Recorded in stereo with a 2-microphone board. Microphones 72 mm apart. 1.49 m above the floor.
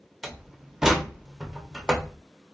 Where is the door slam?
5° right (ahead or behind), 0.6 m.